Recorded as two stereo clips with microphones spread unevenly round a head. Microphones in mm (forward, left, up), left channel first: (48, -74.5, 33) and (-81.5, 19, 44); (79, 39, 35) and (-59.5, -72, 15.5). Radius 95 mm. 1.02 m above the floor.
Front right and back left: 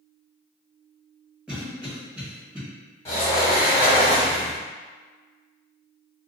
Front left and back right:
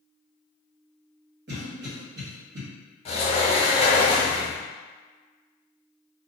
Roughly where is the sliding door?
Ahead left.